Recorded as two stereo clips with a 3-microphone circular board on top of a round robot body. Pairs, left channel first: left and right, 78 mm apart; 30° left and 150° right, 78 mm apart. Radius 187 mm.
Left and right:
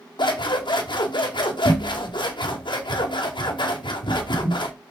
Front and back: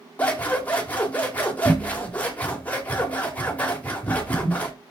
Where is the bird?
No bird in this recording.